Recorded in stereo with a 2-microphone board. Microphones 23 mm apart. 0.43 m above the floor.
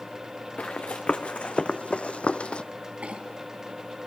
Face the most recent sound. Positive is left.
turn(degrees=-75)  # may be behind; listen again after turning